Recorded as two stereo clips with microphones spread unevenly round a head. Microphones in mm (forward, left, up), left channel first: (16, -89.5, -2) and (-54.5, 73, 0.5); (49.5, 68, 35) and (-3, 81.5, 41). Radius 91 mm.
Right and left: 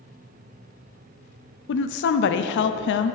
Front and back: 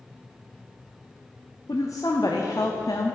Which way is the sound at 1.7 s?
75° right.